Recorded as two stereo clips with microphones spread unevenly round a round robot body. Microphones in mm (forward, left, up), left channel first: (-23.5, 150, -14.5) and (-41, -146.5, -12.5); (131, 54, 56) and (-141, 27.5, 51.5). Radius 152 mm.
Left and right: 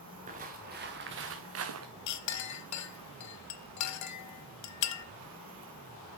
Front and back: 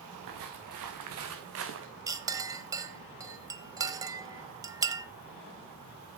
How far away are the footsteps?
About 2 m.